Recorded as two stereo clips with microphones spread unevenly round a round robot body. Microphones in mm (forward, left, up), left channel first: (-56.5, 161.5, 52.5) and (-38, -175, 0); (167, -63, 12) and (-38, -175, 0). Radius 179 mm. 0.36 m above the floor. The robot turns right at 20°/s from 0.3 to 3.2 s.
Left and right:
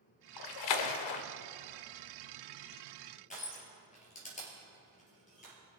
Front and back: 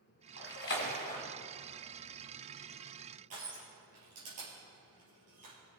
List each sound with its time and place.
0.4 s a splash: 70° left, 0.7 m; by 1.2 s 90° left, 0.7 m
3.3 s crushing: 160° left, 3.5 m